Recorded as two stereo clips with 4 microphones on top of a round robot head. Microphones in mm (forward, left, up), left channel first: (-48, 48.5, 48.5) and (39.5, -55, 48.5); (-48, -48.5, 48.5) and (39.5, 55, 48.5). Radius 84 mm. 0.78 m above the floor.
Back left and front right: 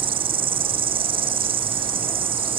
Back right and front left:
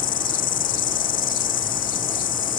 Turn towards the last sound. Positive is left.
turn(degrees=-100)